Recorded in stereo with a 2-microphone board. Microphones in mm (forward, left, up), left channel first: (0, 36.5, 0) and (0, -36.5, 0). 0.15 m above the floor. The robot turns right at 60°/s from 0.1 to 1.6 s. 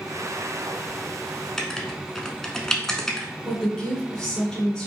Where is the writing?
10° left (ahead or behind), 0.7 m.